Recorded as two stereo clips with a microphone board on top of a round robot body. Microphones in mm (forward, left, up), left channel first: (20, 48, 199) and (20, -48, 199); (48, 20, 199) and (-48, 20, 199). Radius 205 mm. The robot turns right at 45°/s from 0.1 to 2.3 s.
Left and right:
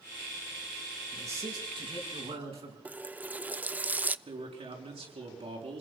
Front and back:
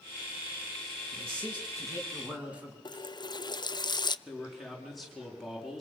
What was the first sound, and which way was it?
A man speaking, 155° right.